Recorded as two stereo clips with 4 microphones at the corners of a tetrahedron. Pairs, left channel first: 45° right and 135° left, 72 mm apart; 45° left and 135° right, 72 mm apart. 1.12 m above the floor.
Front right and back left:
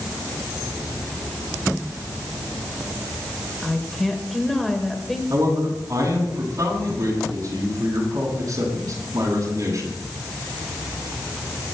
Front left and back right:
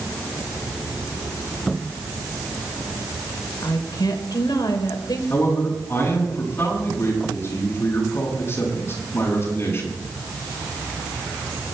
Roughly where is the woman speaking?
Ahead left.